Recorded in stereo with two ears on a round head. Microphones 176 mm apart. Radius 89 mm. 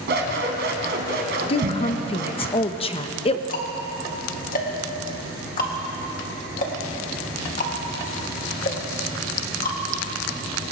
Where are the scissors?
60° right (ahead or behind), 1.9 m.